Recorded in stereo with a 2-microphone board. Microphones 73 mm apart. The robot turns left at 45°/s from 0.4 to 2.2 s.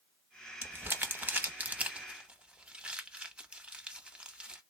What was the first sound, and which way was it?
Crumpling, 25° right (ahead or behind).